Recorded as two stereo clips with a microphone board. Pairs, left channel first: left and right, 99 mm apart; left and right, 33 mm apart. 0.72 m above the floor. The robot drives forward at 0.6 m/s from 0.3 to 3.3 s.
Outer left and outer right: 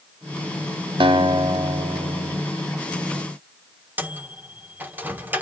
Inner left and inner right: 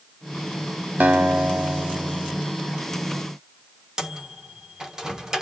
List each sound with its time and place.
1.0 s a guitar: 60° right (ahead or behind), 0.9 m; by 2.4 s 40° right (ahead or behind), 1.1 m
4.0 s a microwave: 20° right (ahead or behind), 1.4 m